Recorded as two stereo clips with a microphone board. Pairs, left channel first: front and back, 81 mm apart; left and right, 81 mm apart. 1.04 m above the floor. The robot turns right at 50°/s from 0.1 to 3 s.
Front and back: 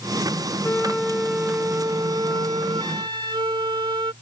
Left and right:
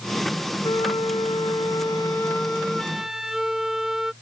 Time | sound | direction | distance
0.6 | a flute | 70° left | ?